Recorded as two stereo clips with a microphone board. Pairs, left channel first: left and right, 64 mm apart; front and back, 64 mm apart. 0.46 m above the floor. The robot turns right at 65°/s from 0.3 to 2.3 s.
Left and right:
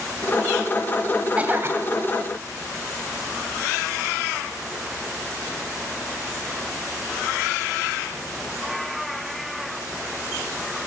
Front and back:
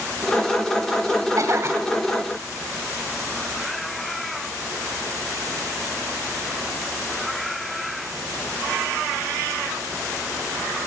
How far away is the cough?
About 2.5 m.